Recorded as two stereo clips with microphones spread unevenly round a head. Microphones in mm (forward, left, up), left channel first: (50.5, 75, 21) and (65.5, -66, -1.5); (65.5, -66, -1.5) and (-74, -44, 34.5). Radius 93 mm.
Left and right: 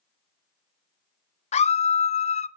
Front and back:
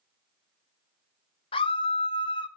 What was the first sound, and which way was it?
A scream, 50° left.